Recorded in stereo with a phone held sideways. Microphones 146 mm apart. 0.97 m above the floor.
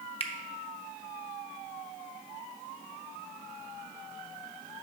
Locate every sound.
0.2 s a finger snap: 40° left (ahead or behind), 0.8 m